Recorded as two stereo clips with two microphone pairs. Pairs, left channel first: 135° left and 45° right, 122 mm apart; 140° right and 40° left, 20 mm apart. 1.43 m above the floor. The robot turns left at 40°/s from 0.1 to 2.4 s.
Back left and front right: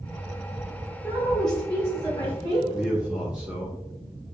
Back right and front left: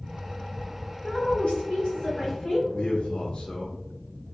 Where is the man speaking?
130° right, 0.8 m.